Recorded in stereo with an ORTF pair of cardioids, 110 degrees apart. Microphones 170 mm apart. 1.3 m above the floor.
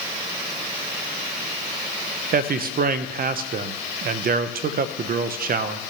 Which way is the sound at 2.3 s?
60° right.